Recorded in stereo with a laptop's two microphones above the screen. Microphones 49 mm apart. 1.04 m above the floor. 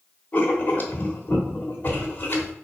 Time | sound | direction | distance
0.3 | writing | 40° left (ahead or behind) | 1.0 m